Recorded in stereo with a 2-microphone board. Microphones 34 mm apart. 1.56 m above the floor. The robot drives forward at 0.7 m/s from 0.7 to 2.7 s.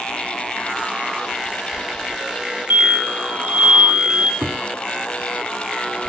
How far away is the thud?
About 2.5 m.